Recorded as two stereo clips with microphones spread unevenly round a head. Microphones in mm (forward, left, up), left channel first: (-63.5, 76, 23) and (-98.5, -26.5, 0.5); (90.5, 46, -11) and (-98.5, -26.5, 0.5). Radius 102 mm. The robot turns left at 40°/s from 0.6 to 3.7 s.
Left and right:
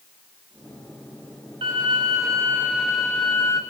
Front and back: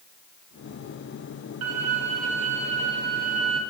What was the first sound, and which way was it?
A violin, 145° right.